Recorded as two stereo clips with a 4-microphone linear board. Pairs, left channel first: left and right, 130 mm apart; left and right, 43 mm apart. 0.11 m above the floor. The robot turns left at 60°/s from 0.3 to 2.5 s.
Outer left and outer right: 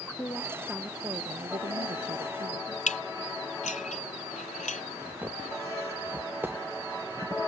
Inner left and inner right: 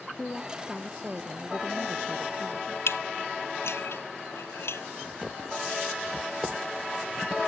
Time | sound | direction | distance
0.2 | a woman speaking | 25° left | ?
2.9 | dishes clattering | 70° left (ahead or behind) | ?
5.0 | footsteps | 15° right (ahead or behind) | ?